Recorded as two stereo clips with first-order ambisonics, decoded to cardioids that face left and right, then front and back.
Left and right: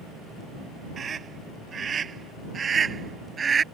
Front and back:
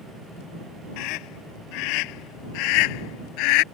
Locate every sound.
1.0 s a scream: 25° right; by 3.6 s 20° right